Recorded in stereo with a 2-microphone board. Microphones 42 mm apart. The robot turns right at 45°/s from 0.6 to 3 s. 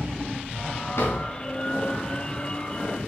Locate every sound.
1.0 s a drawer: 85° left, 3.5 m; by 1.2 s 75° left (ahead or behind), 3.5 m